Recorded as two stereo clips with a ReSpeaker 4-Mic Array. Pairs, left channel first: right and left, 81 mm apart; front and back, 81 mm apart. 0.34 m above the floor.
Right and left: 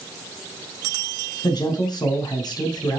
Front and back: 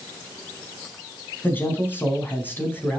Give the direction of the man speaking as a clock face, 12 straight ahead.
2 o'clock.